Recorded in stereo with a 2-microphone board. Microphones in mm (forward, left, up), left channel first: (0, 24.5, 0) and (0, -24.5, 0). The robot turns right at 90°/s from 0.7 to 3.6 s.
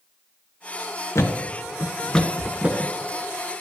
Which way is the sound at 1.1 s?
65° left (ahead or behind).